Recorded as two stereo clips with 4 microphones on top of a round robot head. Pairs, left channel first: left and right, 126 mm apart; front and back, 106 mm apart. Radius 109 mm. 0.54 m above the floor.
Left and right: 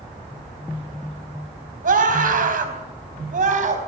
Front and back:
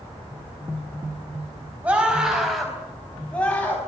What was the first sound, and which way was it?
A scream, 100° right.